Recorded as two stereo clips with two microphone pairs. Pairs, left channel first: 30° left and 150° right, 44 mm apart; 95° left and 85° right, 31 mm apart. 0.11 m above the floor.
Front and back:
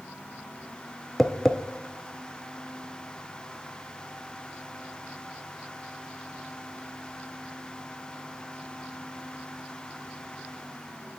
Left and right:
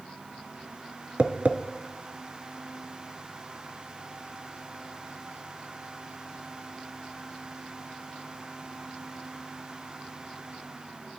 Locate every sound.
1.2 s tapping: 50° right, 0.6 m